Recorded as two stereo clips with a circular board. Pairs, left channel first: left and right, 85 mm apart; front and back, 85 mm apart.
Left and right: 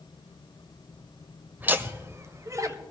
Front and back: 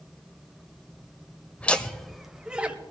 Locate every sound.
1.6 s laughter: 50° right, 0.9 m; by 2.8 s 115° right, 1.1 m